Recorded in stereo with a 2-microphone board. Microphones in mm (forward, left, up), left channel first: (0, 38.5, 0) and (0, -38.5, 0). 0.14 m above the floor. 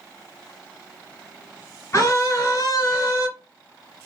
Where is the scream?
45° left (ahead or behind), 2.5 m.